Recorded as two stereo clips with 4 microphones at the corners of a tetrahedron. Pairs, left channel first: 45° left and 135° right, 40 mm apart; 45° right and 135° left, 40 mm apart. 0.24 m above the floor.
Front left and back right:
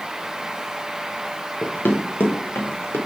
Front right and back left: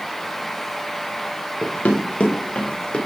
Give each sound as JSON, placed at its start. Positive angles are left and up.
{"t": 1.6, "sound": "running footsteps", "azimuth_deg": 5, "distance_m": 2.0}